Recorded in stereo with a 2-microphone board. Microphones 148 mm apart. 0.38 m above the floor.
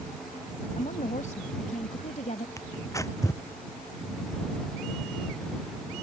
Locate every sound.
0.8 s a woman speaking: 60° left (ahead or behind)
2.6 s tearing paper: 20° left (ahead or behind)